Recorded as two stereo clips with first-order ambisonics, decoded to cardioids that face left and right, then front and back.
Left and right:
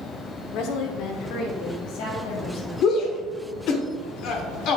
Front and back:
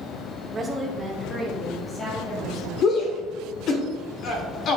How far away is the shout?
About 1.5 m.